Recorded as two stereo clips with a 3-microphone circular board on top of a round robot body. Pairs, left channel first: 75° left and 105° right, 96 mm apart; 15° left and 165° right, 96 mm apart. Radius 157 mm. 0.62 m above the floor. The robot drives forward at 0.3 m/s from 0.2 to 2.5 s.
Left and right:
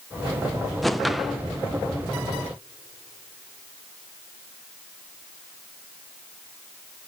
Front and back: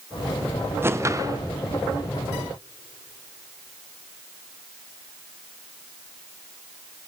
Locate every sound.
0.8 s a whoosh: 165° left, 0.6 m; by 1.4 s 170° left, 0.7 m